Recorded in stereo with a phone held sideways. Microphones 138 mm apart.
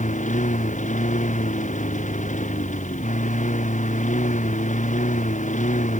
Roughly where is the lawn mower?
Left.